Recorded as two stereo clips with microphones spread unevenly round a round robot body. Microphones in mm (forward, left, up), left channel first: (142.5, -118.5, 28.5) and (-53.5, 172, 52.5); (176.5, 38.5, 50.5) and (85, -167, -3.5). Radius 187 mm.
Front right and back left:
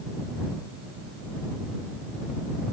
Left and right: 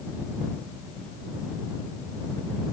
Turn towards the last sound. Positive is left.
No sound to turn to.